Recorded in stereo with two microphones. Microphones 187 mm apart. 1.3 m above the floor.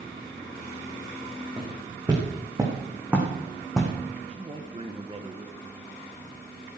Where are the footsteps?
25° right (ahead or behind), 6 m; by 3.9 s 5° left (ahead or behind), 4 m.